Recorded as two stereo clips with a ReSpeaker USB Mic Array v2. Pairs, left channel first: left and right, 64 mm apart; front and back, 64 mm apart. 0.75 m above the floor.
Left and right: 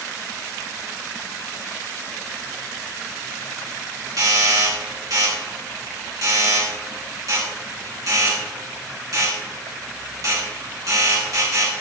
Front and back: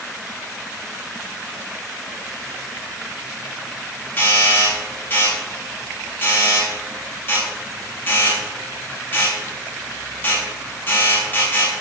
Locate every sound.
4.2 s a doorbell: 60° right, 7.5 m